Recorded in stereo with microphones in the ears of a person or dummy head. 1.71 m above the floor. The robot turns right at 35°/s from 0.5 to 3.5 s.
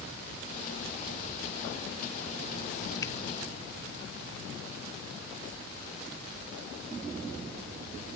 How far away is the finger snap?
About 0.9 m.